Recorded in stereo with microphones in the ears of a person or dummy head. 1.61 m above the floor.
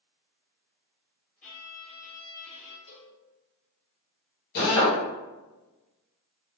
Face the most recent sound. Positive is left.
turn(degrees=60)  # may be behind; listen again after turning